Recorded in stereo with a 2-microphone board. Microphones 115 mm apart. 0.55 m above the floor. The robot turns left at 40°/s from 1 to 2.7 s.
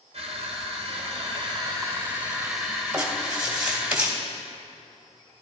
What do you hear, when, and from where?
0.1 s crushing: 115° right, 3 m; by 3.9 s 175° left, 3 m
2.9 s writing: 10° right (ahead or behind), 2 m